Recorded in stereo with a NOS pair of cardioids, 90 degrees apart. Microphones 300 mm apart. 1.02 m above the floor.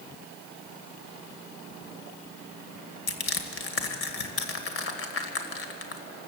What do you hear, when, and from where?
3.1 s crushing: 45° left, 2.5 m